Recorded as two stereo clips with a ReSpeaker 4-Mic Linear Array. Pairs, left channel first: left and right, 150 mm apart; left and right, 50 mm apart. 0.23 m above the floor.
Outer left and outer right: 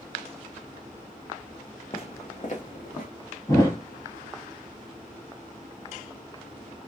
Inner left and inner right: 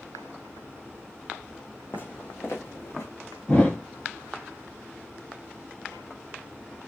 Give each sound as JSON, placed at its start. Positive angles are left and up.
{"t": 1.9, "sound": "footsteps", "side_deg": 40, "distance_m": 0.9}
{"t": 3.5, "sound": "a thud", "side_deg": 25, "distance_m": 2.5}